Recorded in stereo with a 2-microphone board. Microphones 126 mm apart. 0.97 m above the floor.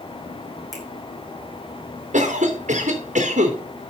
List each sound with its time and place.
0.7 s a finger snap: 30° right (ahead or behind), 5 m
2.1 s a cough: 75° right (ahead or behind), 2.5 m